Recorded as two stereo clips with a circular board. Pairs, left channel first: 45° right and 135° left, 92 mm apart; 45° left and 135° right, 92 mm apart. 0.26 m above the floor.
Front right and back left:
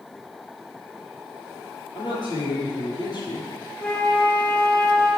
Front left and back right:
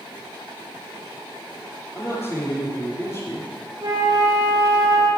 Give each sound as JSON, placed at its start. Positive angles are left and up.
{"t": 1.9, "sound": "a man speaking", "azimuth_deg": -15, "distance_m": 7.0}
{"t": 3.8, "sound": "a flute", "azimuth_deg": -115, "distance_m": 7.0}